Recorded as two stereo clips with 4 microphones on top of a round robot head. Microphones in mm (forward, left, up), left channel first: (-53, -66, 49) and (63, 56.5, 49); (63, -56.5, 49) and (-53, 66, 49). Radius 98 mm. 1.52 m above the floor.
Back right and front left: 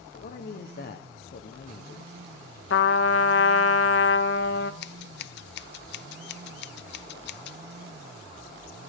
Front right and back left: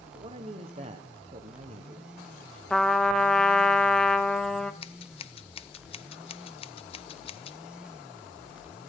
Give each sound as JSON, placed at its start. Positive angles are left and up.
{"t": 0.1, "sound": "a man speaking", "azimuth_deg": -170, "distance_m": 1.1}
{"t": 2.7, "sound": "a trumpet", "azimuth_deg": -135, "distance_m": 0.9}
{"t": 4.8, "sound": "scissors", "azimuth_deg": -105, "distance_m": 0.6}